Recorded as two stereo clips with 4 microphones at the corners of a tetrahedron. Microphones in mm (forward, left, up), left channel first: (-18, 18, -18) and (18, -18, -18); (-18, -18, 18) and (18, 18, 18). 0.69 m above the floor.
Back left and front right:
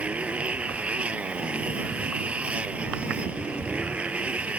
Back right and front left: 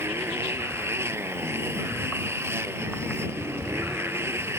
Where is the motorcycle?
15° left.